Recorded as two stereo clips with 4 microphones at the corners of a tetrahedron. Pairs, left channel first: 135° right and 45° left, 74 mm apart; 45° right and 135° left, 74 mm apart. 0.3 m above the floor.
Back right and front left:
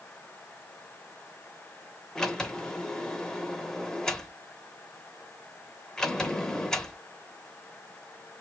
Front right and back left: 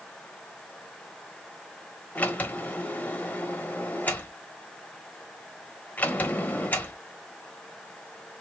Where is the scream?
No scream in this recording.